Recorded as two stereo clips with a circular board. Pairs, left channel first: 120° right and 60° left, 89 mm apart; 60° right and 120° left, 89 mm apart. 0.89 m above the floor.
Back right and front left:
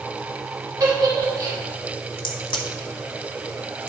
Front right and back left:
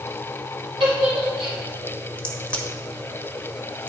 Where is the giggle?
110° left, 3 m.